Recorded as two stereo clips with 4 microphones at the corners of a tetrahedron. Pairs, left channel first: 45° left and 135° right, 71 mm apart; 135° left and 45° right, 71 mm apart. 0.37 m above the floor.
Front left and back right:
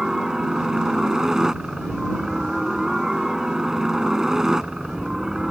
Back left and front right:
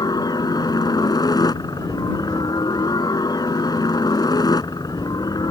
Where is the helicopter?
145° left.